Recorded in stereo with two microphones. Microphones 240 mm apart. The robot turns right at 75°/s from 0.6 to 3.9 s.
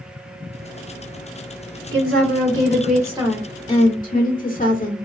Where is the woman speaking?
115° right, 1.5 m; by 5.1 s 35° left, 1.5 m.